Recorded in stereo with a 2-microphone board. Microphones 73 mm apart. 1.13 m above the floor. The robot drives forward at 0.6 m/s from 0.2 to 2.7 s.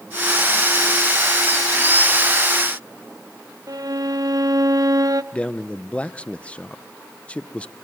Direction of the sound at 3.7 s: 55° right (ahead or behind).